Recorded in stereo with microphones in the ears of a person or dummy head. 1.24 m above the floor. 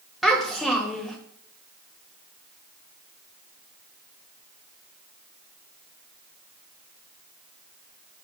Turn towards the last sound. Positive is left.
turn(degrees=-5)  # may be behind; listen again after turning